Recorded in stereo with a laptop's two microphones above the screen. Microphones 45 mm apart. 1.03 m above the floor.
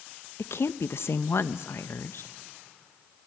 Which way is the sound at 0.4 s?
70° left (ahead or behind).